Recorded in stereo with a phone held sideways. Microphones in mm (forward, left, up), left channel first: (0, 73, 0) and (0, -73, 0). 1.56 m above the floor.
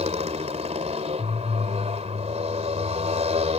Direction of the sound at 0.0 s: 50° right (ahead or behind).